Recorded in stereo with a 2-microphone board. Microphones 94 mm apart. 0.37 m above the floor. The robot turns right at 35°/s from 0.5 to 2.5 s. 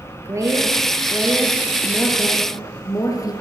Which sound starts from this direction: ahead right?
A woman speaking, at 0.2 s.